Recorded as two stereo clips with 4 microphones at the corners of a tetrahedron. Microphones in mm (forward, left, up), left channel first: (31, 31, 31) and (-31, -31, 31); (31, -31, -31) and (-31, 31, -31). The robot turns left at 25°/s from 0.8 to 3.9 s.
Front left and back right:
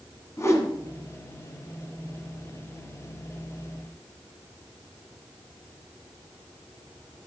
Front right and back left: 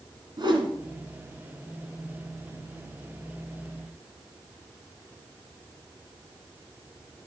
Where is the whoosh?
105° left, 1.5 m.